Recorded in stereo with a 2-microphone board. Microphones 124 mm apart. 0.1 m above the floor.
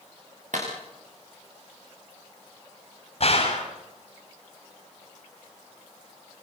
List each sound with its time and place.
0.5 s a clap: 85° right, 8 m
3.2 s a gunshot: 50° left (ahead or behind), 7.5 m